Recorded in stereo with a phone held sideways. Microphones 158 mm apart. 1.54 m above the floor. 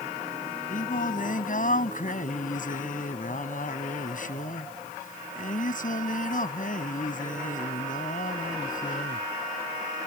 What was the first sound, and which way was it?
Singing, 55° left (ahead or behind).